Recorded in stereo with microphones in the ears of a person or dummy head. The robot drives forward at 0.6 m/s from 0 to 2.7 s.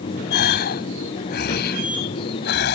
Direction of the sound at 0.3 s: 50° left (ahead or behind).